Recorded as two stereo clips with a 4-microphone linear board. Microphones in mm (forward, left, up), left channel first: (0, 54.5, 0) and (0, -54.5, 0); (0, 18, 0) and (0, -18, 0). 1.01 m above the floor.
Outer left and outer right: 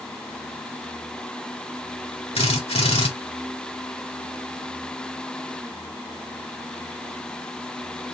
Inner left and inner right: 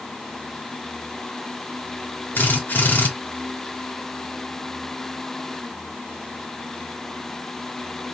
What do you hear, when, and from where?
2.4 s a drill: 65° left (ahead or behind), 2 m